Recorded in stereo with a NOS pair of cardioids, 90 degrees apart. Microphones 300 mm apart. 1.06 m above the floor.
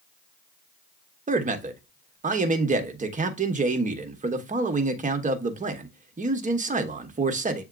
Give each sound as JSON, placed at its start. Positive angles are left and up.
{"t": 1.3, "sound": "a man speaking", "azimuth_deg": -25, "distance_m": 1.1}